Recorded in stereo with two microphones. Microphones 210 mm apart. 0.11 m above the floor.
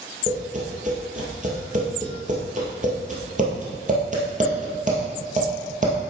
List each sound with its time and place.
0.3 s tapping: 35° right (ahead or behind), 2.5 m